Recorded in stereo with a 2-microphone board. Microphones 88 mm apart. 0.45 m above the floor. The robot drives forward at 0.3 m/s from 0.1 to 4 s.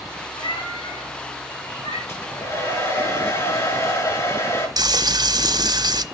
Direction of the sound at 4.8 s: 50° right (ahead or behind).